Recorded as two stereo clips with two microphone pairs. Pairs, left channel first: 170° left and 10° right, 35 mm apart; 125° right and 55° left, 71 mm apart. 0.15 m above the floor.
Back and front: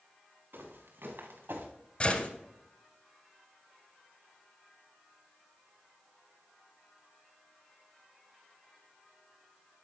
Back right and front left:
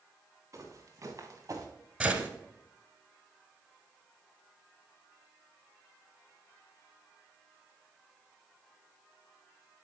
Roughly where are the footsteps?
Ahead.